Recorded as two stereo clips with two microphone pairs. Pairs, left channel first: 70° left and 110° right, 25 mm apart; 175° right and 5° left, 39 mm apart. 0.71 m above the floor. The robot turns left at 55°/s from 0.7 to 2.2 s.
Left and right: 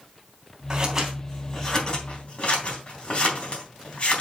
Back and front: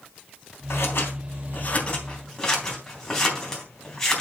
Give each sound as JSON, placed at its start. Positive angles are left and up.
{"t": 0.7, "sound": "scissors", "azimuth_deg": -170, "distance_m": 3.0}